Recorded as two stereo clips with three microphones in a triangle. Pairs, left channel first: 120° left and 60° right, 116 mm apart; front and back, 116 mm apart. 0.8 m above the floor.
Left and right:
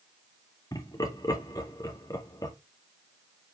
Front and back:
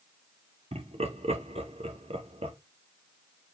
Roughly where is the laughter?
Behind.